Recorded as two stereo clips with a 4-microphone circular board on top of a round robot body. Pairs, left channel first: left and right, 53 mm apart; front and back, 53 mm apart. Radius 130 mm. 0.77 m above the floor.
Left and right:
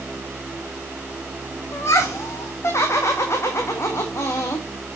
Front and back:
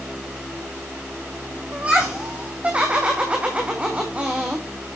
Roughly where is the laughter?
Behind left.